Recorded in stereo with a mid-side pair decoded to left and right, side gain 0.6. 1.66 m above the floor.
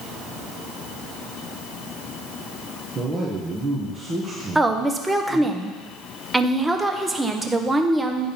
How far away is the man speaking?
About 1.6 m.